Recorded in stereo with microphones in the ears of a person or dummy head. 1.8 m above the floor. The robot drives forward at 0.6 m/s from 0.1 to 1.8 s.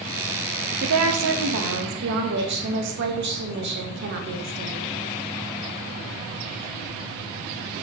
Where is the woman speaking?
85° right, 1.1 m; by 4.9 s 60° right (ahead or behind), 1.3 m.